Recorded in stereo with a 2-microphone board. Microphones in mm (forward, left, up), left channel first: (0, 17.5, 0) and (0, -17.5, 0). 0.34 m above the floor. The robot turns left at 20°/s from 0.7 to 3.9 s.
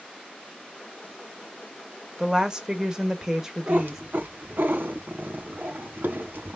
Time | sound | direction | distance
2.2 | a woman speaking | 20° right (ahead or behind) | 0.8 m
3.7 | a cat meowing | 70° right (ahead or behind) | 1.1 m